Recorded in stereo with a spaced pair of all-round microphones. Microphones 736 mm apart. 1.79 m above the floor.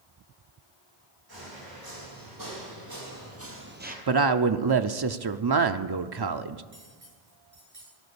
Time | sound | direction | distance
1.3 | footsteps | 30° right (ahead or behind) | 4.5 m
4.1 | a woman speaking | 35° right (ahead or behind) | 0.5 m
6.7 | cutlery clinking | 80° right | 7.5 m